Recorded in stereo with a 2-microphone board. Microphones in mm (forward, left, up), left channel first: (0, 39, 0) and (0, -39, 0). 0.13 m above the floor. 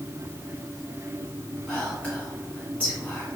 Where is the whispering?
20° left (ahead or behind), 1.6 m.